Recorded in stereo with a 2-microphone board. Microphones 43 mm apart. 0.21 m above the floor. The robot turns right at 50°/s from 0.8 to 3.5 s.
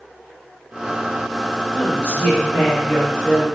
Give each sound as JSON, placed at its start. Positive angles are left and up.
{"t": 1.7, "sound": "a woman speaking", "azimuth_deg": 75, "distance_m": 1.4}